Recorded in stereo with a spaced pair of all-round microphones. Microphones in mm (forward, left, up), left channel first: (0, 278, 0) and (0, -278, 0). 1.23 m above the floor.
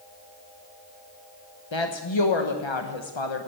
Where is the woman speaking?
55° left (ahead or behind), 1.0 m.